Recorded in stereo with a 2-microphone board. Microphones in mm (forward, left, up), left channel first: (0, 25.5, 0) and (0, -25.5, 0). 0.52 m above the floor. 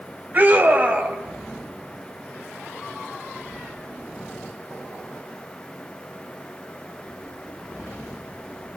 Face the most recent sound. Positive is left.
turn(degrees=-35)  # may be behind; listen again after turning